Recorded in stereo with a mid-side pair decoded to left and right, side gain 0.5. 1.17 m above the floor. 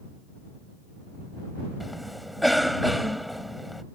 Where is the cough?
Straight ahead.